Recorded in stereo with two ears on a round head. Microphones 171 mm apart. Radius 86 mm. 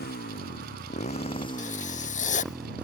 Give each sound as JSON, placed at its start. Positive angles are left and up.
{"t": 0.0, "sound": "a motorcycle", "side_deg": 55}
{"t": 1.6, "sound": "writing", "side_deg": 40}